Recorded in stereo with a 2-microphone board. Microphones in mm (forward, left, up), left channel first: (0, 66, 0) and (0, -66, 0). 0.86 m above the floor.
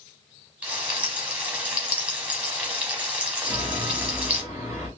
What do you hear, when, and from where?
0.6 s frying: 10° right (ahead or behind), 1.0 m
3.4 s a chime: 10° left (ahead or behind), 2 m